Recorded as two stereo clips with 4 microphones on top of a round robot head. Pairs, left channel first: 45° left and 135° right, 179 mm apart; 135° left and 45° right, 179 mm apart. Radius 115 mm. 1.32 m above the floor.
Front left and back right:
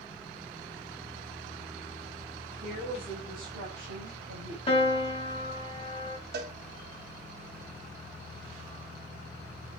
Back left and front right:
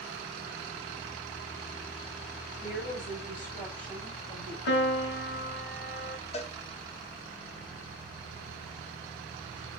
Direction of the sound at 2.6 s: 175° right.